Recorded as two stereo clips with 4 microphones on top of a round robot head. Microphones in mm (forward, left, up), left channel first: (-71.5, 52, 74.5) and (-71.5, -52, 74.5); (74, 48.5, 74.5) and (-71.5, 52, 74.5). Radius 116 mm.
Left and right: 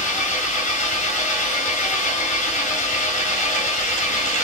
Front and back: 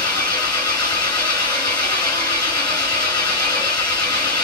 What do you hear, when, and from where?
0.0 s an engine running: 60° left, 2 m